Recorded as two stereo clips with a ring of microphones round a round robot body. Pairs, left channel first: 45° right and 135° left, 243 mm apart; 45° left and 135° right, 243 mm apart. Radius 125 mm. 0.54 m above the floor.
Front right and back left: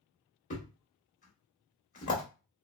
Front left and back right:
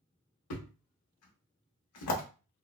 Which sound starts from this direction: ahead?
A thud, at 0.5 s.